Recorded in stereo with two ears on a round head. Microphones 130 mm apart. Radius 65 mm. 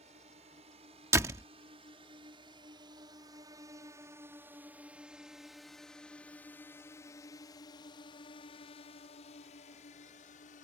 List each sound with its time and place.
0.0 s a drone: 45° right (ahead or behind); by 10.7 s 55° left (ahead or behind)
1.1 s a door slam: 20° right (ahead or behind)